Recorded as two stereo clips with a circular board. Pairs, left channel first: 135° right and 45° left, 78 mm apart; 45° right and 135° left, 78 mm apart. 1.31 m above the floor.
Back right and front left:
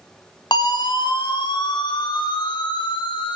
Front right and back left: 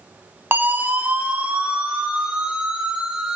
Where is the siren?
160° right, 3 m; by 3.4 s 145° right, 6 m.